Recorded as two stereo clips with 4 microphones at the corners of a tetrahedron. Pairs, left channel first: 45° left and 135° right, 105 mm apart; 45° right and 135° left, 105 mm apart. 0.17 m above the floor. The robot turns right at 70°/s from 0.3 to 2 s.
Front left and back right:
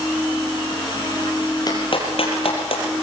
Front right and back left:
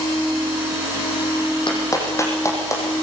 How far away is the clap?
About 5.5 m.